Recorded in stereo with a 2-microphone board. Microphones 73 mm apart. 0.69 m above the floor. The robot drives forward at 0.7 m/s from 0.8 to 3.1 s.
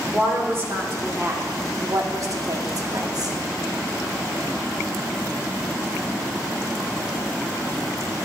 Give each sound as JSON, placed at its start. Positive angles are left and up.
{"t": 0.1, "sound": "a woman speaking", "side_deg": -35, "distance_m": 1.9}